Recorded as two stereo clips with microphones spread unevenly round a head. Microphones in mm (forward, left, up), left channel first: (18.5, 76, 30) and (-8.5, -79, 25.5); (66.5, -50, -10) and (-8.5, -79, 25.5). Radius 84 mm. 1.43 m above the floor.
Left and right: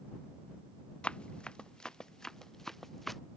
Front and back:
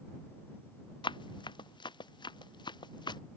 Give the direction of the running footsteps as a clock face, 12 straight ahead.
12 o'clock.